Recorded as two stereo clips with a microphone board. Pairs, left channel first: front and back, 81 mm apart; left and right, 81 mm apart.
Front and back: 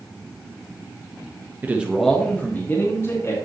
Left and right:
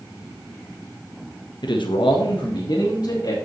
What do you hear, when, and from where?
1.6 s a man speaking: 115° left, 1.2 m; by 3.3 s 50° left, 2.5 m